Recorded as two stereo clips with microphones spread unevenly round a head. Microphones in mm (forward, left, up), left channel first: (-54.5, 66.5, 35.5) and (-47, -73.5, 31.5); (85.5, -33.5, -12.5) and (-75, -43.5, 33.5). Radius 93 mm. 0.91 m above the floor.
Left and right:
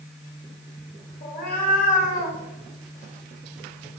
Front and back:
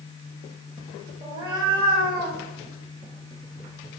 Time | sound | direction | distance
1.2 | a cat meowing | 110° left | 2.5 m